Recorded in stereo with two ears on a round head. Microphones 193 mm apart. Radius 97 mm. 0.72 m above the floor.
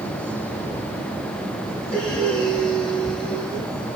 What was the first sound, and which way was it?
Breathing, 5° left (ahead or behind).